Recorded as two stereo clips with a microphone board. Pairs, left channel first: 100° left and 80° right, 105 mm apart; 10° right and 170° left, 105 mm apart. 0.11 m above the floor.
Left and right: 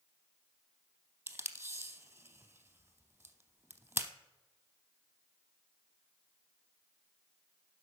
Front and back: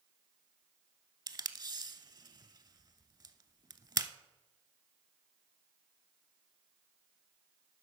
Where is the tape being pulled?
145° right, 0.6 m.